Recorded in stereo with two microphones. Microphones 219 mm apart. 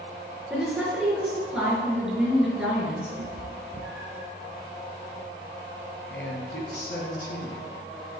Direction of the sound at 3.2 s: 60° right (ahead or behind).